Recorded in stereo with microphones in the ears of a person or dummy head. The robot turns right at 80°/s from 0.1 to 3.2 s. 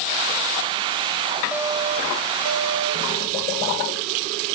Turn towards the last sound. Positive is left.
turn(degrees=-40)